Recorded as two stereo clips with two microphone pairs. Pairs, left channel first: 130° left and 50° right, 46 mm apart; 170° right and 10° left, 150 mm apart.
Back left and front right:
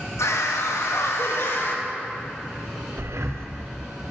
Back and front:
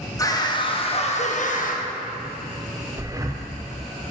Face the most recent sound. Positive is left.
turn(degrees=-55)